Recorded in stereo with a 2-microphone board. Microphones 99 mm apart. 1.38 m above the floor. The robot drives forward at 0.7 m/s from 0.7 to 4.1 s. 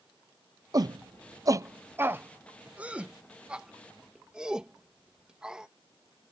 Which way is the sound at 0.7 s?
40° right (ahead or behind).